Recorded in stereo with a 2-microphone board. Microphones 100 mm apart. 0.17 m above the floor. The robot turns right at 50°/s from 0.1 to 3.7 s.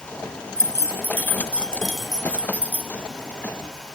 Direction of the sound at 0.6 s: 25° left (ahead or behind).